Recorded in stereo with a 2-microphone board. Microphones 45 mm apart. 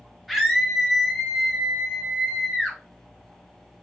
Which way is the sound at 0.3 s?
Centre (ahead or behind).